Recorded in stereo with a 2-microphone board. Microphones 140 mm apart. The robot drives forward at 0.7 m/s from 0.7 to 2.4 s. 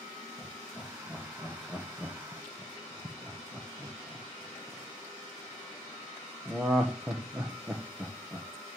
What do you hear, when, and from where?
0.4 s laughter: 5° right (ahead or behind), 2.5 m; by 8.5 s 10° right (ahead or behind), 1.2 m